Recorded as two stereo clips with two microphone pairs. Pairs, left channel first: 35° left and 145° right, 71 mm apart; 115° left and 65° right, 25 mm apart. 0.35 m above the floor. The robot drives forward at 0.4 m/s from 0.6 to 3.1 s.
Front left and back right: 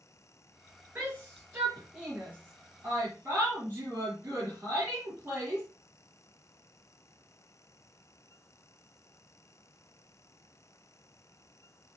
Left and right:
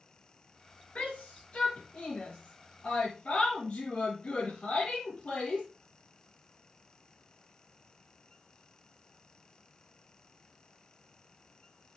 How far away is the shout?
About 5.5 m.